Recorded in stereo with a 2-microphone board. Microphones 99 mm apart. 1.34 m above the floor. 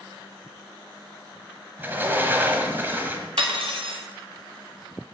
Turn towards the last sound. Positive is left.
turn(degrees=-75)  # may be behind; listen again after turning